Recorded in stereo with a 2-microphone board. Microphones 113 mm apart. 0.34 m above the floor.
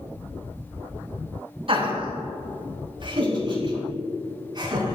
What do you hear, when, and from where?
1.7 s laughter: 55° right (ahead or behind), 3 m; by 5.0 s 40° right (ahead or behind), 4.5 m